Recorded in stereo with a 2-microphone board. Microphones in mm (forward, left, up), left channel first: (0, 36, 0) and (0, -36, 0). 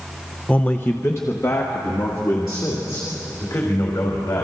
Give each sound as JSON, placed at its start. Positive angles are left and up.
{"t": 0.5, "sound": "a man speaking", "side_deg": 15, "distance_m": 0.8}